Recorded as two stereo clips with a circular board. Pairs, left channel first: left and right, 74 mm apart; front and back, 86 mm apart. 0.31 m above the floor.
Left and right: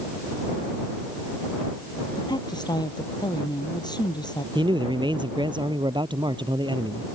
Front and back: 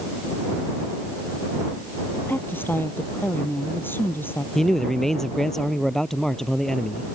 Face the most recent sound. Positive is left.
turn(degrees=-85)